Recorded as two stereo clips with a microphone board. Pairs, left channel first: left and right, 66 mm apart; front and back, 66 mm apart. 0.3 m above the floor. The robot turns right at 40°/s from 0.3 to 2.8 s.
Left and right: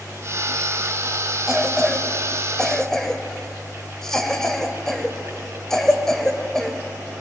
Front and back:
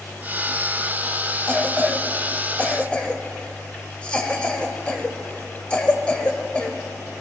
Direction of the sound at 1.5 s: 25° right.